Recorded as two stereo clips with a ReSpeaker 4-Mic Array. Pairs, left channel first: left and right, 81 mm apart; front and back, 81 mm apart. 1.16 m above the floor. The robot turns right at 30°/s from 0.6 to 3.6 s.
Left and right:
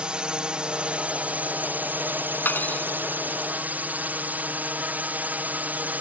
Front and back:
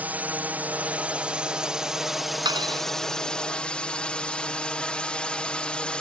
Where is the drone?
150° right; by 6.0 s 60° right.